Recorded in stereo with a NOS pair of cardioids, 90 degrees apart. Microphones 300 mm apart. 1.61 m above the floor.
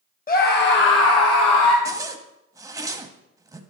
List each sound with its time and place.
0.3 s a scream: 30° left, 1.3 m; by 1.8 s 75° left, 1.1 m
1.9 s a zipper: 10° right, 0.9 m